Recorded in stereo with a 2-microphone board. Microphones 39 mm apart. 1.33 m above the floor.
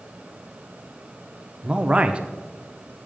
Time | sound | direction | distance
1.6 | a man speaking | 30° right (ahead or behind) | 0.9 m